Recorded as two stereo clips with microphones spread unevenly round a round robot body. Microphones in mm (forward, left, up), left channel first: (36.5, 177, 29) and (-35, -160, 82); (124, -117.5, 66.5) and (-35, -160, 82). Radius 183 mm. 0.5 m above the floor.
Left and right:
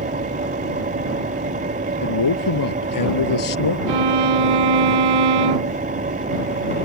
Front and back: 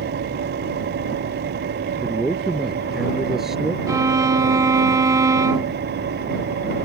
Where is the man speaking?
105° left.